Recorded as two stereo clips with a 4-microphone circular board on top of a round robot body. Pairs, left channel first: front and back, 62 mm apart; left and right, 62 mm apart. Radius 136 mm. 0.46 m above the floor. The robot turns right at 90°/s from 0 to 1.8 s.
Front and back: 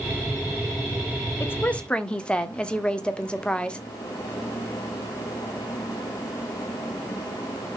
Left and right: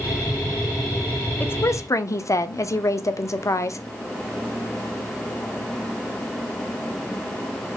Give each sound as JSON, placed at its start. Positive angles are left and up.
{"t": 1.4, "sound": "a woman speaking", "azimuth_deg": 35, "distance_m": 1.5}